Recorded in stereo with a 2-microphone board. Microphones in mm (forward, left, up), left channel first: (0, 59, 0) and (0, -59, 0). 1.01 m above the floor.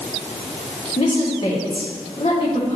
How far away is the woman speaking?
About 2 m.